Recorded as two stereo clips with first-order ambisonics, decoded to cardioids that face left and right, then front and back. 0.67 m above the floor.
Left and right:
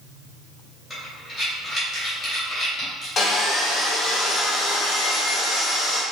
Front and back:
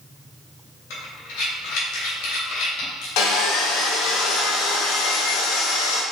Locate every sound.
0.9 s breathing: straight ahead, 1.7 m
3.2 s sawing: 15° left, 0.9 m